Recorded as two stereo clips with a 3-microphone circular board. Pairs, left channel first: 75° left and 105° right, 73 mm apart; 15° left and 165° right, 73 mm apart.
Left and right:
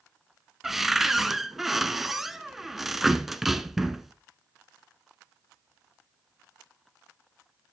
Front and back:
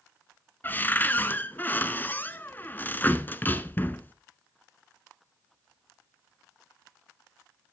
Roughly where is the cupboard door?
Ahead.